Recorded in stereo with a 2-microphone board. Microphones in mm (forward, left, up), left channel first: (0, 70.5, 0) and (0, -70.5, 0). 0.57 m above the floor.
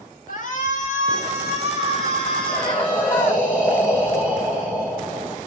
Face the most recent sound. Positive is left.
turn(degrees=20)  # may be behind; listen again after turning